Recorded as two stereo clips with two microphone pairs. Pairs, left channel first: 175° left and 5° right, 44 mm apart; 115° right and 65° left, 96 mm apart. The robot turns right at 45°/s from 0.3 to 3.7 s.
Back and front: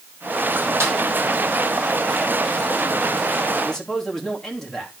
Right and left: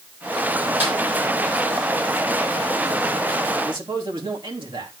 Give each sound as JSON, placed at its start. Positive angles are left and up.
{"t": 0.8, "sound": "a snare drum", "azimuth_deg": -5, "distance_m": 5.5}
{"t": 3.6, "sound": "a man speaking", "azimuth_deg": 95, "distance_m": 3.0}